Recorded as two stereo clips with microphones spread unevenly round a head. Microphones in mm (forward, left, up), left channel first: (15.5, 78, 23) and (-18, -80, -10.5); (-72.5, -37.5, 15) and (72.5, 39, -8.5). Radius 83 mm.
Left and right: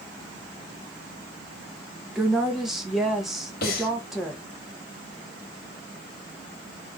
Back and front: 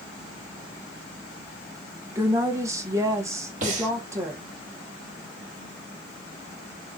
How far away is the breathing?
About 1.4 m.